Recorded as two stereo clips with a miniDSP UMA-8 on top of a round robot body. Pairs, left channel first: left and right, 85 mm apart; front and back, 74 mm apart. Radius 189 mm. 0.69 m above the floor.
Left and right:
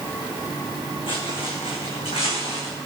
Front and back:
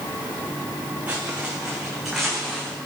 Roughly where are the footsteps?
Left.